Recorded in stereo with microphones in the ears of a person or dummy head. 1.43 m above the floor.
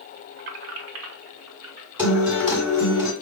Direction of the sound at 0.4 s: 55° right (ahead or behind).